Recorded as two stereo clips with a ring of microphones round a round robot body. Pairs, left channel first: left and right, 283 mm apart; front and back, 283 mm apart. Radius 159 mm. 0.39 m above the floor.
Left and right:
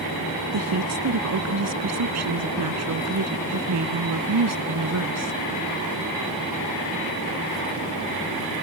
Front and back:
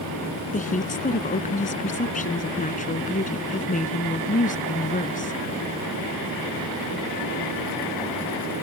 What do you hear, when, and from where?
0.5 s a woman speaking: 60° right